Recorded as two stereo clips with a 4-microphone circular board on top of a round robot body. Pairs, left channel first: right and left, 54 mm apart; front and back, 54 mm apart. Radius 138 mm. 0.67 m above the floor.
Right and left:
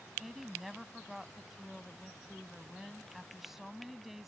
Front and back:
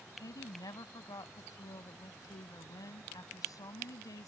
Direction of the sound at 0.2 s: 5° left.